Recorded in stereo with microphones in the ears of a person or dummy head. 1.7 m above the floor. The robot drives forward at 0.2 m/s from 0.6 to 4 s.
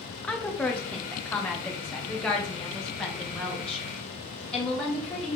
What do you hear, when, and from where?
0.2 s a woman speaking: 10° left (ahead or behind), 1.0 m; by 5.4 s 5° left (ahead or behind), 1.7 m